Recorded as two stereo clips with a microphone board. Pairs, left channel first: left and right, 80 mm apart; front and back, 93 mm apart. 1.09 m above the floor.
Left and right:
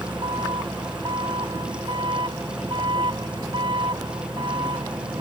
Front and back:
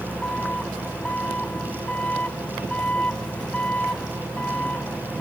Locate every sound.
0.0 s an engine running: 75° right